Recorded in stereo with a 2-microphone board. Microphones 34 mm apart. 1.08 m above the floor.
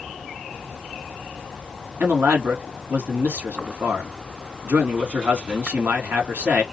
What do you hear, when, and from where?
2.0 s a man speaking: 80° right, 2 m